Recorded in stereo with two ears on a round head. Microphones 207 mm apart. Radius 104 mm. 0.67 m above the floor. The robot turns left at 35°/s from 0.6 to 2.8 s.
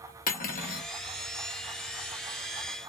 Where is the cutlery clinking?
40° left (ahead or behind), 0.8 m; by 0.9 s 45° left (ahead or behind), 0.8 m.